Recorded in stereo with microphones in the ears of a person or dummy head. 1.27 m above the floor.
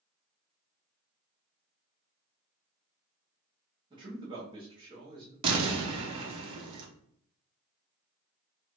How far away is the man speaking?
About 0.9 m.